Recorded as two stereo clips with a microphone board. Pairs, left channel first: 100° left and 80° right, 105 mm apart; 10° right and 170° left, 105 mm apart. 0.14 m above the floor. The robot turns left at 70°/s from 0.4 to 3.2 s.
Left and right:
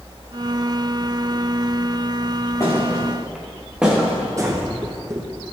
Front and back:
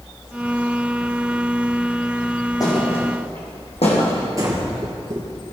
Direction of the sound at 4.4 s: 135° right.